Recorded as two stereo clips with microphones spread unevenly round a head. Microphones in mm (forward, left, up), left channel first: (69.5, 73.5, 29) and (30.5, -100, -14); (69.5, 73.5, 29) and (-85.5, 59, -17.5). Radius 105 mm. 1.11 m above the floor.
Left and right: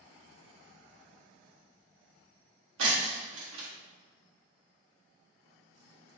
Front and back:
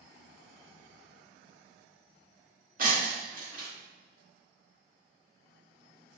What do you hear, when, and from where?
2.8 s breaking glass: 120° right, 0.7 m